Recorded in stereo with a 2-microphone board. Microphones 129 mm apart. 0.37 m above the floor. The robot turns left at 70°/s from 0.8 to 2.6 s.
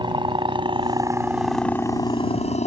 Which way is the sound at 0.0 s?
40° right (ahead or behind).